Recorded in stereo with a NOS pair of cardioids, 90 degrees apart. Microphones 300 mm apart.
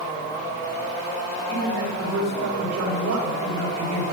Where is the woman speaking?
65° right, 5.5 m.